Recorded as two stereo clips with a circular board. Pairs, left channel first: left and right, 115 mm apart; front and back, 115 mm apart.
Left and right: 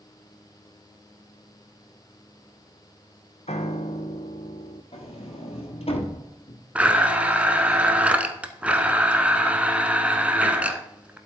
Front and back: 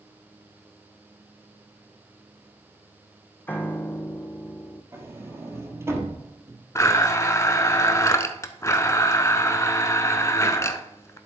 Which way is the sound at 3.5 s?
70° left.